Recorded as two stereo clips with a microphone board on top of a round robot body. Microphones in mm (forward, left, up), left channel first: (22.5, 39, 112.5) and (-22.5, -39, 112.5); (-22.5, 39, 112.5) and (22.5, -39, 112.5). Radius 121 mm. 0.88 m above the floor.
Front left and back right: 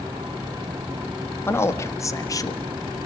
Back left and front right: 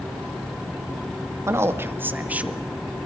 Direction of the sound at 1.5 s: 5° right.